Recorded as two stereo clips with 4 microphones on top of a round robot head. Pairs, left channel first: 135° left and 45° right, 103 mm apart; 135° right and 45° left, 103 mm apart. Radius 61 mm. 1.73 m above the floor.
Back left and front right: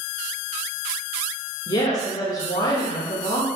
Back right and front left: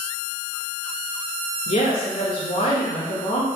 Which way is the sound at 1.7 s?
170° right.